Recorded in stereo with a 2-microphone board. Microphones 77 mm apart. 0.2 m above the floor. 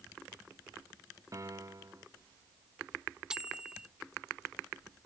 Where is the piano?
45° right (ahead or behind).